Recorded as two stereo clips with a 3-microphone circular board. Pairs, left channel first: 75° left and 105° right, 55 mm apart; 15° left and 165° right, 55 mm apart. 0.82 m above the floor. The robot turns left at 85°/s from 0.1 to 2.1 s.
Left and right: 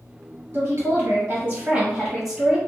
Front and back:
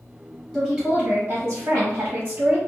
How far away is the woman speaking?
About 1.4 m.